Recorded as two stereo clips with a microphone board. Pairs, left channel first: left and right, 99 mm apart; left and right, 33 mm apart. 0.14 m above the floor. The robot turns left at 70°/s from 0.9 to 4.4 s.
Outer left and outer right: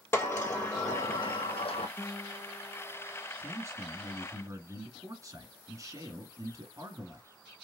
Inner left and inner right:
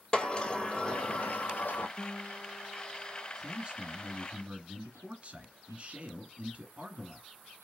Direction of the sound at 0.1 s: 155° left.